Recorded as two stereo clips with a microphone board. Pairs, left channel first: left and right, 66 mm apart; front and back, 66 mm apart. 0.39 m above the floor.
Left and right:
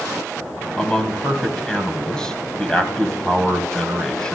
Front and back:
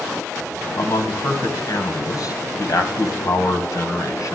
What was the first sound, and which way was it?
A man speaking, 10° left.